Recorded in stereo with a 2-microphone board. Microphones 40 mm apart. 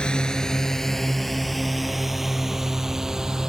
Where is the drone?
20° left (ahead or behind); by 3.5 s 15° right (ahead or behind).